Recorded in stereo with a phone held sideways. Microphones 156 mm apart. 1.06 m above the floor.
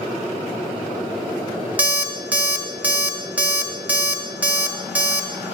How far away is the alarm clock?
About 0.8 m.